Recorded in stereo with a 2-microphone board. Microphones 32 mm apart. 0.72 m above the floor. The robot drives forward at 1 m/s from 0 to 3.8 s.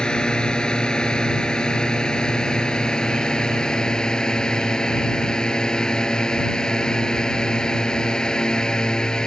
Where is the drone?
25° left (ahead or behind); by 9.3 s 20° left (ahead or behind).